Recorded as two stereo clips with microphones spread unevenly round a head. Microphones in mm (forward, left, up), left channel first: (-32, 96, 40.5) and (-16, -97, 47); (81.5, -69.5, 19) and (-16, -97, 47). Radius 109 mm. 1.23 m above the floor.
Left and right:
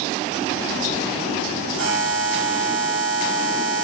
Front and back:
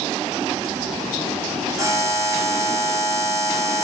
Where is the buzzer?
105° right, 2.5 m.